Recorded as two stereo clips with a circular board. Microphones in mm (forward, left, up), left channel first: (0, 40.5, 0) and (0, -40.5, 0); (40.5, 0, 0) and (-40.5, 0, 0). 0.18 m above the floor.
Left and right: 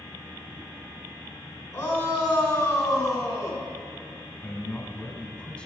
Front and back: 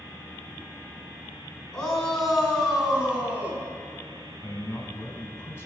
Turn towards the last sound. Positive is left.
turn(degrees=25)